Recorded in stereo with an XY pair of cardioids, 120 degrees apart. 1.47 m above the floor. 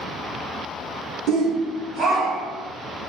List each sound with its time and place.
1.3 s a shout: 65° right, 0.9 m; by 2.7 s 75° right, 3 m